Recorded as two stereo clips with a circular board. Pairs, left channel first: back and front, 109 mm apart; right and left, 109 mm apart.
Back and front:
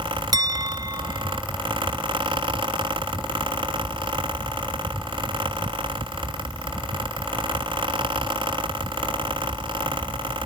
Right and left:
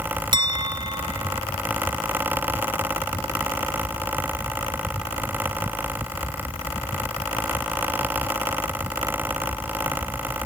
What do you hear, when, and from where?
0.3 s a clink: 50° left